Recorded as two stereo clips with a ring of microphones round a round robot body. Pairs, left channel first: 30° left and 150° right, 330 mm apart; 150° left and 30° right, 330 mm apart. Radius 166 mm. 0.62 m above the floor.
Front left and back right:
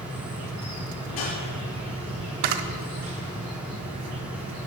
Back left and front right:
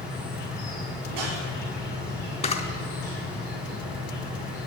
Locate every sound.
0.0 s an insect: 170° left, 4 m
1.1 s a whoosh: 5° left, 4 m
2.4 s a camera shutter: 140° right, 0.7 m